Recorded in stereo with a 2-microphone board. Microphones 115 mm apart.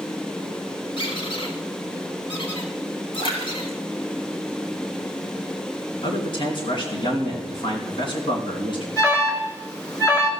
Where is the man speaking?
50° left (ahead or behind), 3.5 m.